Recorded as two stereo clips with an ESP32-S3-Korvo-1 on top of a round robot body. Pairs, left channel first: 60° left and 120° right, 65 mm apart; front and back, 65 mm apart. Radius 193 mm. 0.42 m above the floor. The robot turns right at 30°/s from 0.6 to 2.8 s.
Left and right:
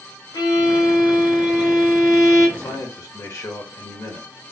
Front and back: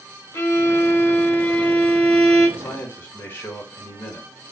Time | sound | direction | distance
0.3 | a violin | 40° left | 1.1 m
2.6 | a man speaking | 40° left | 1.9 m